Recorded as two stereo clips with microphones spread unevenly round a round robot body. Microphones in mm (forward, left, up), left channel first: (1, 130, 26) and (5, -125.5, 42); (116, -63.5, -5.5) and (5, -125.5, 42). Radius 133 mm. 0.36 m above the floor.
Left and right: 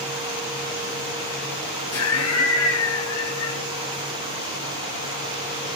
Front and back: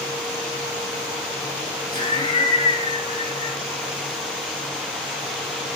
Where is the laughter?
70° left, 3 m.